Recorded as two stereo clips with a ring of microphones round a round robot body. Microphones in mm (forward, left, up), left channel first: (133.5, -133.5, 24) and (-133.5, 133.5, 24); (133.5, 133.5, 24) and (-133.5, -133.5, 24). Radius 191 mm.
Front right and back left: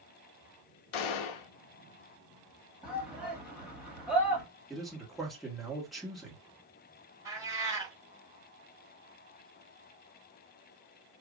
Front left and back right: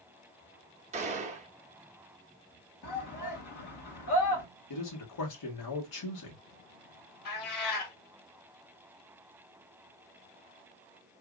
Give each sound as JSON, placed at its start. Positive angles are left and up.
{"t": 0.9, "sound": "a gunshot", "azimuth_deg": -60, "distance_m": 0.6}
{"t": 2.8, "sound": "a shout", "azimuth_deg": 50, "distance_m": 1.5}
{"t": 4.7, "sound": "a man speaking", "azimuth_deg": 45, "distance_m": 1.5}
{"t": 7.2, "sound": "a cat meowing", "azimuth_deg": 55, "distance_m": 1.4}